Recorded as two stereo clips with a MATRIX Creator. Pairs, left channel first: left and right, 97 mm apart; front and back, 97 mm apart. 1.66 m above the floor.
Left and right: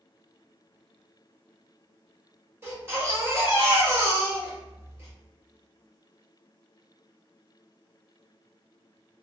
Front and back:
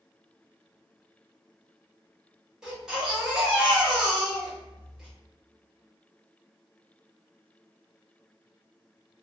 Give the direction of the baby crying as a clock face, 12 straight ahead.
4 o'clock.